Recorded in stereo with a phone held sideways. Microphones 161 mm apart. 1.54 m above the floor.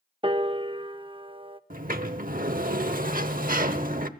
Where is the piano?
35° right (ahead or behind), 0.6 m.